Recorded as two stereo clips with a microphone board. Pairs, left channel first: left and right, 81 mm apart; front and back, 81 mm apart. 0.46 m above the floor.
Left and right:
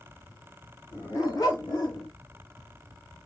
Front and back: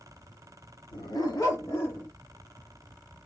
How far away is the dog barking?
About 1.0 m.